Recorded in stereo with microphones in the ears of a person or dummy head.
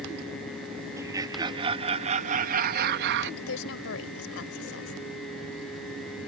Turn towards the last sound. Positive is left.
turn(degrees=80)